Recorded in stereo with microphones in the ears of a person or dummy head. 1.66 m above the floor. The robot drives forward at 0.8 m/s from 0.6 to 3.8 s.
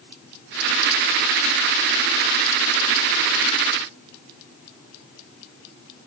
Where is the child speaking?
No child speaking in this recording.